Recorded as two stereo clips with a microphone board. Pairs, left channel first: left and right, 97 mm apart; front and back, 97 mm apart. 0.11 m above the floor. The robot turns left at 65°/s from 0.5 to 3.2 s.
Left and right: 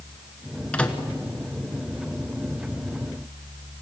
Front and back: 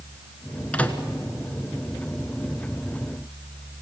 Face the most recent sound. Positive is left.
turn(degrees=-120)